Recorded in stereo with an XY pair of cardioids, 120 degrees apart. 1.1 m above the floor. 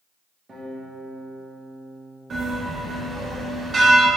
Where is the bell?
35° right, 1.1 m.